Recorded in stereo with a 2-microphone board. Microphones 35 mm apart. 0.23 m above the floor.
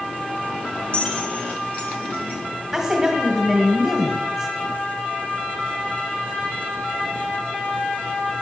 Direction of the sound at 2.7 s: 10° right (ahead or behind).